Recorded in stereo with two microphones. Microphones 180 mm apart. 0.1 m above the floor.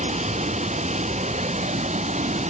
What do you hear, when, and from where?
0.0 s running water: 40° right (ahead or behind)